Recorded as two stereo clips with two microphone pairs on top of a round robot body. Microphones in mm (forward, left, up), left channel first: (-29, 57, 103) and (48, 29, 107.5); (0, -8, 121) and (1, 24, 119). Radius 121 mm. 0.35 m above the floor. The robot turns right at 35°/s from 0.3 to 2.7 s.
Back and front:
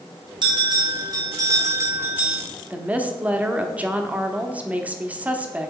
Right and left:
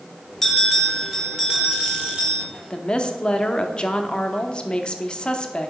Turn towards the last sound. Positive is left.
turn(degrees=-75)